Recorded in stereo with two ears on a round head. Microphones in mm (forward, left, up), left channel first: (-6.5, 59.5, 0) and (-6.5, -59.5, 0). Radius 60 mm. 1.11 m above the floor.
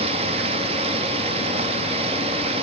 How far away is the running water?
About 1.4 m.